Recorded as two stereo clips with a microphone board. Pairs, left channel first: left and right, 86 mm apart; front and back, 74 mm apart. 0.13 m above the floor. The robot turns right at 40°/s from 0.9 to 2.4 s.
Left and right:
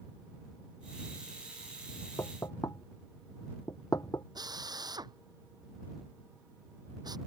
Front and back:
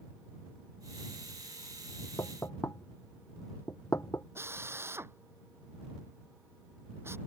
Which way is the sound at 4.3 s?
125° right.